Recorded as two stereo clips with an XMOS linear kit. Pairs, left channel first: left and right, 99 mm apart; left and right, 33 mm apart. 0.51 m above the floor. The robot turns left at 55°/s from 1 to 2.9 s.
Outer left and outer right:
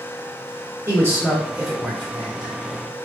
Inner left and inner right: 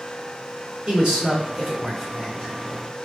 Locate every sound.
0.9 s a man speaking: 25° right (ahead or behind), 1.4 m; by 2.5 s 30° left (ahead or behind), 1.4 m